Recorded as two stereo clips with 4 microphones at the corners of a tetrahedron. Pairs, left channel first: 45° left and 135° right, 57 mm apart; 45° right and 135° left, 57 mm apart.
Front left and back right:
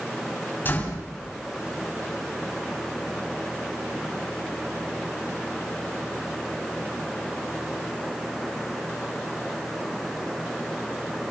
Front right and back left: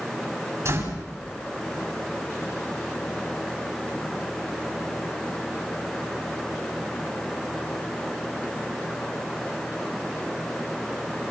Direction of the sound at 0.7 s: 100° left.